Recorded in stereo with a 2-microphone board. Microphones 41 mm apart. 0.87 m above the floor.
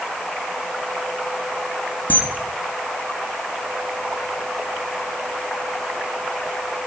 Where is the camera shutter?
40° left (ahead or behind), 0.9 m.